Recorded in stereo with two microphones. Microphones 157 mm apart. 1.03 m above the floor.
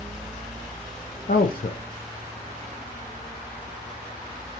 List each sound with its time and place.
1.3 s a man speaking: 65° left (ahead or behind), 0.5 m